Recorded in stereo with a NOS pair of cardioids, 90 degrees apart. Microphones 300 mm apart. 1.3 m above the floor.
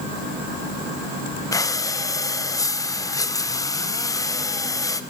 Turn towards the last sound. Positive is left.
turn(degrees=10)